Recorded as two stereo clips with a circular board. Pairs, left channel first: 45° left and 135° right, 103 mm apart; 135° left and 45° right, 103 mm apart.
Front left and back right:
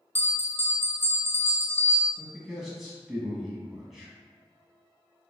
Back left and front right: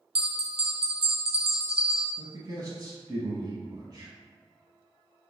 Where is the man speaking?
50° right, 1.2 m.